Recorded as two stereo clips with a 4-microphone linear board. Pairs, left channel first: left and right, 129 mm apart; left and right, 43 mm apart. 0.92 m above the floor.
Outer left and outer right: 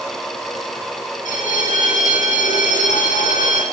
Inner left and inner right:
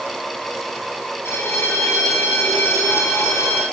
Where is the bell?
75° left (ahead or behind), 3 m.